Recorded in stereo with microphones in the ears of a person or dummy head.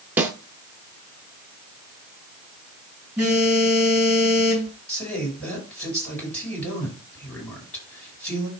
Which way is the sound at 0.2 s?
10° right (ahead or behind).